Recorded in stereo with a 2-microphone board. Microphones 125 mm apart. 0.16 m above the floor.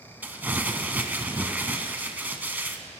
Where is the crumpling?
15° right (ahead or behind), 0.9 m.